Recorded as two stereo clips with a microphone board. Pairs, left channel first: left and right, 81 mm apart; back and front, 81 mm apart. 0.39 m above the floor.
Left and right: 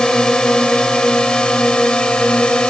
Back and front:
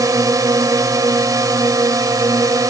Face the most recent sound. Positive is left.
turn(degrees=15)